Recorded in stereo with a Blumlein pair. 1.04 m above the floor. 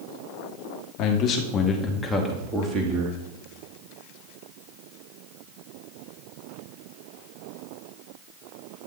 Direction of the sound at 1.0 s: 40° left.